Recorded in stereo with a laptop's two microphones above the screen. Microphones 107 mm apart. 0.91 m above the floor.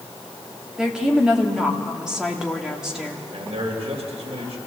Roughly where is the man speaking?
Right.